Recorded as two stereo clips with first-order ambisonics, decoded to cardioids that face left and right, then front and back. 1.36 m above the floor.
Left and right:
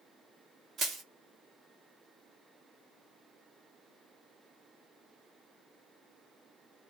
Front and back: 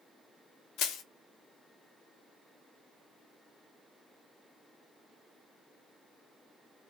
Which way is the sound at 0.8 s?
30° right.